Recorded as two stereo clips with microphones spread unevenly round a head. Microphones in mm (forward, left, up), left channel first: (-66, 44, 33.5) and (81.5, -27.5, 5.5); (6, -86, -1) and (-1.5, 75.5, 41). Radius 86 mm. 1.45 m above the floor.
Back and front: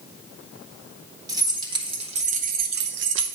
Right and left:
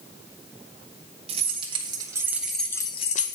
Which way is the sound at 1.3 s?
45° left.